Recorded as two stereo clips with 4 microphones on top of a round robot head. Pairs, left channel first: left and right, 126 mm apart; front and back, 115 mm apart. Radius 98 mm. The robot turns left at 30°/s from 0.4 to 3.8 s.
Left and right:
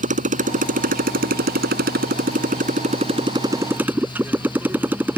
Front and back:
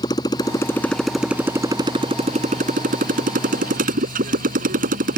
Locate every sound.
0.0 s a motorcycle: 70° right; by 5.2 s 170° right